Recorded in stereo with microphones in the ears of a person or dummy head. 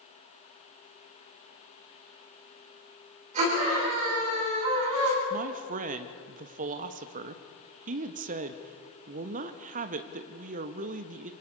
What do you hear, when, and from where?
3.3 s a scream: 35° right (ahead or behind), 9 m
5.3 s a man speaking: 35° right (ahead or behind), 1.3 m